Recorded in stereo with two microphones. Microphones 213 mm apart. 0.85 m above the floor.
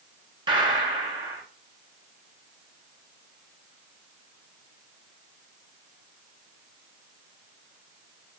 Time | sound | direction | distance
0.5 | a gunshot | 20° right (ahead or behind) | 0.7 m